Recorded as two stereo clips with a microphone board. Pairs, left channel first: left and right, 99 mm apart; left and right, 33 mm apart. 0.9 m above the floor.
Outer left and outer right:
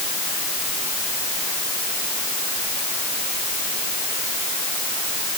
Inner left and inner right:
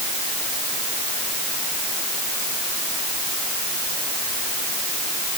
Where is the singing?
I don't hear singing.